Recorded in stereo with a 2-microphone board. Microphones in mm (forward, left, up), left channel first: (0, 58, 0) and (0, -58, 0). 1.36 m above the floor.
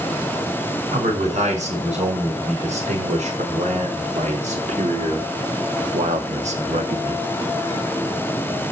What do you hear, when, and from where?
0.9 s a man speaking: 75° right (ahead or behind), 5 m; by 7.3 s 65° right (ahead or behind), 1.6 m